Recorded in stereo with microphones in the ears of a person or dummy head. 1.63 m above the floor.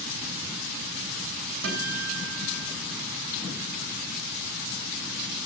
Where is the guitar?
70° right (ahead or behind), 3 m.